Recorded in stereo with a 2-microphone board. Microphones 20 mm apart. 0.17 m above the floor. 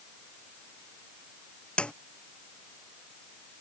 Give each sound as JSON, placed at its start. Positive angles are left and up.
{"t": 1.8, "sound": "a snare drum", "side_deg": 65}